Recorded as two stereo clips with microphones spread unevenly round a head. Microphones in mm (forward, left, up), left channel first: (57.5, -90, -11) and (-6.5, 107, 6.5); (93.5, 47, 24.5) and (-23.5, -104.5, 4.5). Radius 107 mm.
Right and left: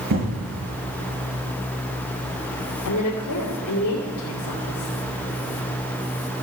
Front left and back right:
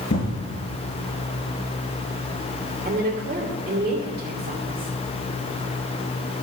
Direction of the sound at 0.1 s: 85° left.